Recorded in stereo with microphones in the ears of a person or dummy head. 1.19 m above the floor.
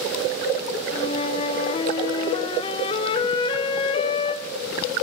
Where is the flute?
25° left (ahead or behind), 0.6 m.